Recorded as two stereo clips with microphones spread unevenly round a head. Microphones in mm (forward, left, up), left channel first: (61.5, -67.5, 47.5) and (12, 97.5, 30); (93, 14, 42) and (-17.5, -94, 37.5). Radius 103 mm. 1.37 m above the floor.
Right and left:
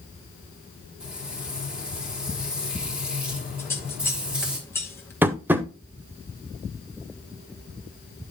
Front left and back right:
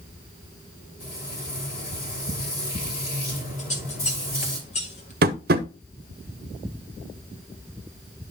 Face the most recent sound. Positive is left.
turn(degrees=-175)